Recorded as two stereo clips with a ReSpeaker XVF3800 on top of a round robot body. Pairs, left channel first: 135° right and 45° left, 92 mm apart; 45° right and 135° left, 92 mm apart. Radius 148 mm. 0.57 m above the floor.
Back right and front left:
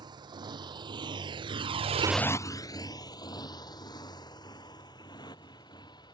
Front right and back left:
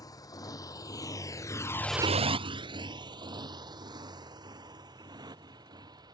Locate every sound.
0.0 s a motorcycle: 5° left; by 6.1 s straight behind